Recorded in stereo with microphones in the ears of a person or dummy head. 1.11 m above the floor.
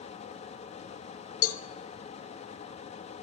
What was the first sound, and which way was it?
A fan, 40° left (ahead or behind).